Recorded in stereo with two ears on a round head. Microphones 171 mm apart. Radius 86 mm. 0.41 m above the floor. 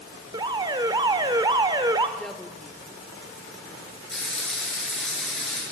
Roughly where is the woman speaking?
Centre.